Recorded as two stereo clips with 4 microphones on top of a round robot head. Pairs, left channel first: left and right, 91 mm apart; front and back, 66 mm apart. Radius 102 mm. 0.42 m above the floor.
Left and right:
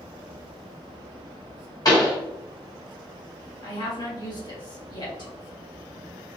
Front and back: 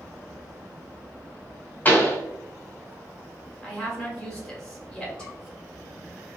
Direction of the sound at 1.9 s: 55° left.